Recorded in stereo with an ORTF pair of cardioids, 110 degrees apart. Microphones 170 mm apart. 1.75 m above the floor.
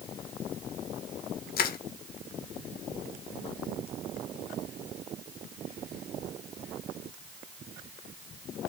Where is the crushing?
55° left, 2.5 m.